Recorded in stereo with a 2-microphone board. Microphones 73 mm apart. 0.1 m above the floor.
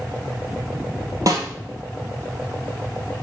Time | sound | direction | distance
1.3 | a snare drum | 50° right (ahead or behind) | 1.7 m